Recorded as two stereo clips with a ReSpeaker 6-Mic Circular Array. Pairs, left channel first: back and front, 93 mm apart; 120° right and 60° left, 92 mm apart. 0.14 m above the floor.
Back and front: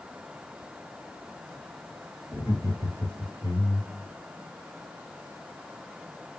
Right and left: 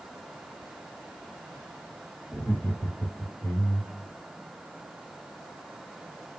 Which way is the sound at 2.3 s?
Straight behind.